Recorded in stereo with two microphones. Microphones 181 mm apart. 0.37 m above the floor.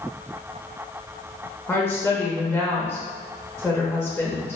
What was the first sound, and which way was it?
A woman speaking, 10° left (ahead or behind).